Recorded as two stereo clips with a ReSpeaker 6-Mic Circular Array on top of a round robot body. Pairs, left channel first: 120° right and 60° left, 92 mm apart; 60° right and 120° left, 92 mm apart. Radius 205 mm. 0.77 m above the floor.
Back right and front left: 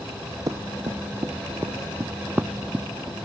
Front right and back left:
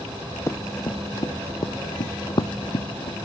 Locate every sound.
0.5 s running footsteps: 5° left; by 3.2 s 25° right